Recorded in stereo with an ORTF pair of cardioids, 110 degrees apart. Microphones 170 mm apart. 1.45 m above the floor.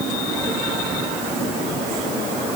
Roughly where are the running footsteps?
I don't hear running footsteps.